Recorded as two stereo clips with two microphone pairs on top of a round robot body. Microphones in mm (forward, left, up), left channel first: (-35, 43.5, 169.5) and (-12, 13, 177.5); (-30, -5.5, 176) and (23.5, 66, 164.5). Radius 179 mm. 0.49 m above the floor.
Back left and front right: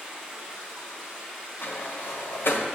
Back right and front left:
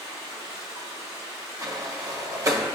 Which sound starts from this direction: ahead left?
Running water, at 0.0 s.